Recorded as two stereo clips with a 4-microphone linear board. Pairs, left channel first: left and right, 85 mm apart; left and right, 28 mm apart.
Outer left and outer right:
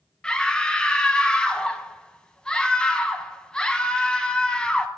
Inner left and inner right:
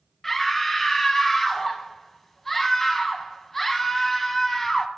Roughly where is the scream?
Centre.